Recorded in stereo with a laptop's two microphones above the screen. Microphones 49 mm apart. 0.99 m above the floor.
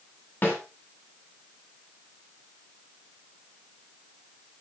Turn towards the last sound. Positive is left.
turn(degrees=40)  # may be behind; listen again after turning